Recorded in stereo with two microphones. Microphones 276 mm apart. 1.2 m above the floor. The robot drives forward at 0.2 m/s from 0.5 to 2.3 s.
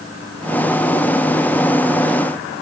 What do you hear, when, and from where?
Only background noise.